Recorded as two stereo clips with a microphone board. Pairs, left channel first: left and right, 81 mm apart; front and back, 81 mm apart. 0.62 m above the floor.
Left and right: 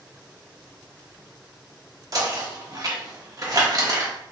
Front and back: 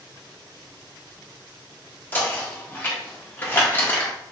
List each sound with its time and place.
2.1 s knocking: 60° right, 0.7 m